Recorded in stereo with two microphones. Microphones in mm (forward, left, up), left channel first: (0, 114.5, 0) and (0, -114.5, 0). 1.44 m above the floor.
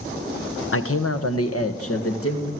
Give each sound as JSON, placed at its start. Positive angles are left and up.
{"t": 0.7, "sound": "a man speaking", "side_deg": 65, "distance_m": 1.1}